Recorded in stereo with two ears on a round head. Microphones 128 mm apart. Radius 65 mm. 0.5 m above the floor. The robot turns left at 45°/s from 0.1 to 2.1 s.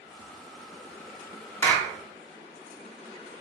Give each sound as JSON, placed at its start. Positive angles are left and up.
{"t": 1.6, "sound": "a clap", "side_deg": 15, "distance_m": 0.7}